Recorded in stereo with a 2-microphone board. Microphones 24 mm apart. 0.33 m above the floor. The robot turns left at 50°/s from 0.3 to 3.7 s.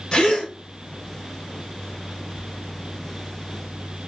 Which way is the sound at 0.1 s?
30° left (ahead or behind).